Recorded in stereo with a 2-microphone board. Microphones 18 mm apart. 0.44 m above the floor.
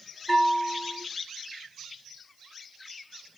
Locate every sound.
0.3 s a bell: 20° left (ahead or behind), 2.5 m